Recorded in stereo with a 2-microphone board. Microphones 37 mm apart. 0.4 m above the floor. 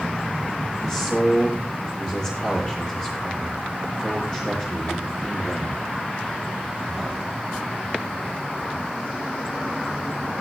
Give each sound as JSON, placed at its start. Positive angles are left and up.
{"t": 0.8, "sound": "a man speaking", "side_deg": 20, "distance_m": 9.0}